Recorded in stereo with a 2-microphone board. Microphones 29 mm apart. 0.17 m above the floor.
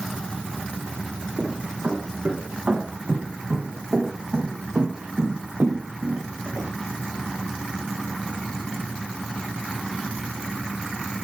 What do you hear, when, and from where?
1.4 s footsteps: 50° right (ahead or behind), 7 m; by 6.7 s 85° right, 4.5 m